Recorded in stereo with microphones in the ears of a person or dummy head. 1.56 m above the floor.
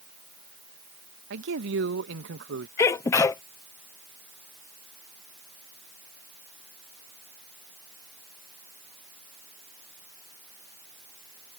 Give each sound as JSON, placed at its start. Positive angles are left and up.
{"t": 1.3, "sound": "a man speaking", "side_deg": -70}
{"t": 2.8, "sound": "a sneeze", "side_deg": 20}